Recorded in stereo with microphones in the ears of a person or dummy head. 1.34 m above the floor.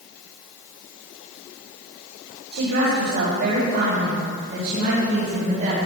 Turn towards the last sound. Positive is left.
turn(degrees=-45)  # may be behind; listen again after turning